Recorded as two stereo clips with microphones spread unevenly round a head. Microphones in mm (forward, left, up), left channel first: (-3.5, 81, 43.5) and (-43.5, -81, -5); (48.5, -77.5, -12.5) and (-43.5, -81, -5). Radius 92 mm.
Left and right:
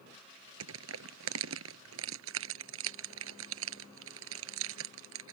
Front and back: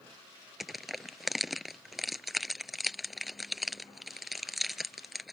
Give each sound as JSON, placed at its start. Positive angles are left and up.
{"t": 0.6, "sound": "crushing", "azimuth_deg": -90}